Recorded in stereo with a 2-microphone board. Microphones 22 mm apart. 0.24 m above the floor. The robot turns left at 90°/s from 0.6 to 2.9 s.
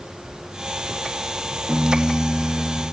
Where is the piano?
20° right, 7.5 m; by 2.8 s 125° right, 7.5 m.